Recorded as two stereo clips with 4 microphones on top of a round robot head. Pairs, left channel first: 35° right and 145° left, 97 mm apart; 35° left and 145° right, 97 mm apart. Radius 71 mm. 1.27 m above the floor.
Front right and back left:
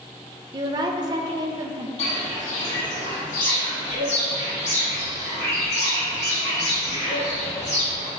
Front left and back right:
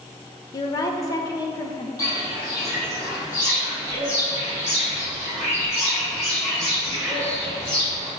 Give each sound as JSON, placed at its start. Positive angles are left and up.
{"t": 0.5, "sound": "a woman speaking", "azimuth_deg": 95, "distance_m": 0.6}
{"t": 2.0, "sound": "footsteps", "azimuth_deg": -20, "distance_m": 1.9}